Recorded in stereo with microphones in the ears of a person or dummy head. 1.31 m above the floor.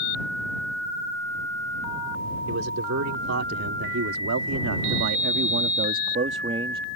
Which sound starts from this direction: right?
A man speaking, at 2.5 s.